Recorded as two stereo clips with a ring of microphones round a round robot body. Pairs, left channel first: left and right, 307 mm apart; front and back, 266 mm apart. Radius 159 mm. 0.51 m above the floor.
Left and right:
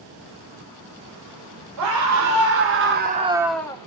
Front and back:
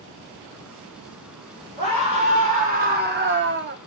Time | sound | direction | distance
1.8 | a scream | 110° right | 2.5 m